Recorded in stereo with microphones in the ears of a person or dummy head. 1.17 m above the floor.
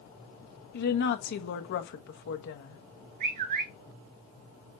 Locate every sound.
0.7 s a woman speaking: 60° left (ahead or behind), 1.2 m
3.2 s a bird: 60° right (ahead or behind), 4 m